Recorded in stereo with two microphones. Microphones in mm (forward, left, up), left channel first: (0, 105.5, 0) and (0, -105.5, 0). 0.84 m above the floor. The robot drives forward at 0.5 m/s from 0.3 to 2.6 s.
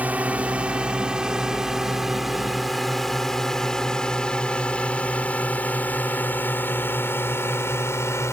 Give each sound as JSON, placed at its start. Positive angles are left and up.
{"t": 0.0, "sound": "a drone", "side_deg": -5}